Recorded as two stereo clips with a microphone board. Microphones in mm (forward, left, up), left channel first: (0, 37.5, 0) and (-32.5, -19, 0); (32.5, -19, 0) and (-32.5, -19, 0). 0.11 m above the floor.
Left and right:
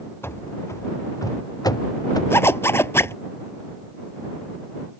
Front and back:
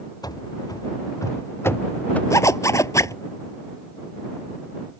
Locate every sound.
0.2 s running footsteps: 10° left; by 2.2 s 70° left
2.3 s a zipper: 20° left